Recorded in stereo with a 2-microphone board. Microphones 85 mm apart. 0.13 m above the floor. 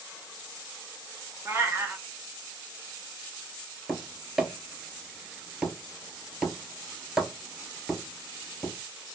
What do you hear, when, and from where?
1.4 s a cat meowing: 35° right (ahead or behind), 0.5 m
3.9 s tapping: 5° right (ahead or behind), 0.5 m